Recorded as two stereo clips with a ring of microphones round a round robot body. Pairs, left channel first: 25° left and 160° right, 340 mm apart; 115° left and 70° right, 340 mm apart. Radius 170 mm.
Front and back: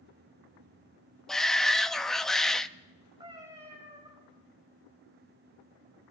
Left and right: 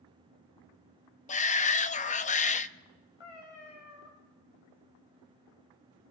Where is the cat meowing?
125° left, 7 m.